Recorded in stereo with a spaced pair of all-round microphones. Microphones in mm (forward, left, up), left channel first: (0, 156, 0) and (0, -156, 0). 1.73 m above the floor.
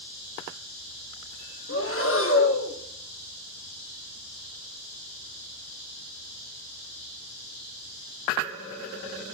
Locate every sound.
1.7 s breathing: 45° left (ahead or behind), 1.4 m